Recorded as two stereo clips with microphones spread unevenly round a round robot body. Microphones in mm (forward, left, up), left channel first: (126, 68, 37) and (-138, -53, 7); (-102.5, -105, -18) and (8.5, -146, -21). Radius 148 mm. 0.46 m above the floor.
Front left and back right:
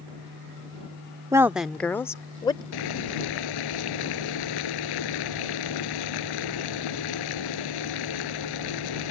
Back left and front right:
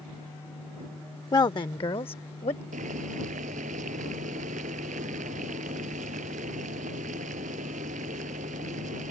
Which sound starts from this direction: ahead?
Boiling, at 2.7 s.